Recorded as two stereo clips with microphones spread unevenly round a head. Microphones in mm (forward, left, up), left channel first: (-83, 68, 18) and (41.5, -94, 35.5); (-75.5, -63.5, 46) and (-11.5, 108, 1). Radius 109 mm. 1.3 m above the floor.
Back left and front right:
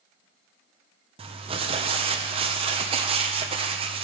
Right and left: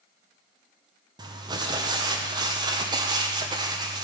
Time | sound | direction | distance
1.2 | crumpling | 10° left | 1.0 m